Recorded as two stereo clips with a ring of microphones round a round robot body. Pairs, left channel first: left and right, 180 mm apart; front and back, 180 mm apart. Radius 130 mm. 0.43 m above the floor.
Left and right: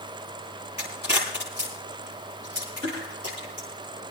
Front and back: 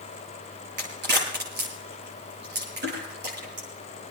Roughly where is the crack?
Behind.